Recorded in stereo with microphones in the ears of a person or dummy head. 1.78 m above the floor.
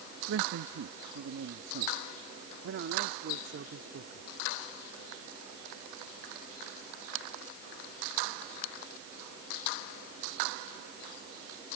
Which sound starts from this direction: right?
A man speaking, at 0.3 s.